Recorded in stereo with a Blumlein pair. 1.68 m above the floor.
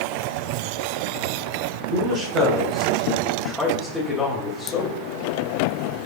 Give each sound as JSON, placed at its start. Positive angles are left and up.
{"t": 1.9, "sound": "a man speaking", "azimuth_deg": -45, "distance_m": 1.3}